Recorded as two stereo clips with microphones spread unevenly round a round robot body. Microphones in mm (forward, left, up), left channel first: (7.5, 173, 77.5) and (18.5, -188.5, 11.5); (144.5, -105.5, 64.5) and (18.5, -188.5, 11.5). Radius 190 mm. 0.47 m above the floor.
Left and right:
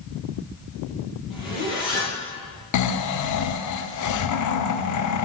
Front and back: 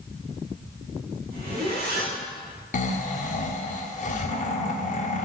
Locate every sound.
1.3 s a zipper: 175° right, 5.5 m
2.7 s snoring: 75° left, 1.1 m